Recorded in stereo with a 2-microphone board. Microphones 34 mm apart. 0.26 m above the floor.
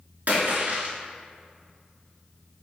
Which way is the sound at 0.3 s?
65° right (ahead or behind).